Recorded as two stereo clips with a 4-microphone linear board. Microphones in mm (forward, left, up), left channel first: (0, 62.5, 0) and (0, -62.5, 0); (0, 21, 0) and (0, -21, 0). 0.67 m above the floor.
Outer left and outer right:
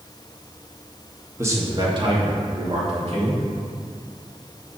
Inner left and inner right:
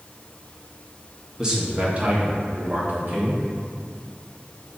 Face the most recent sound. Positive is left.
turn(degrees=-60)  # may be behind; listen again after turning